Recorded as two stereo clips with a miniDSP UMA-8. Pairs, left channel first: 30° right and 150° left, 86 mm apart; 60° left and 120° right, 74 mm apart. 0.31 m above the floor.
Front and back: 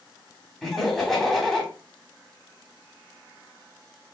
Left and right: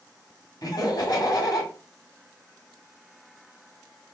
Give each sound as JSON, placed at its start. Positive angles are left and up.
{"t": 0.6, "sound": "laughter", "azimuth_deg": 55, "distance_m": 1.6}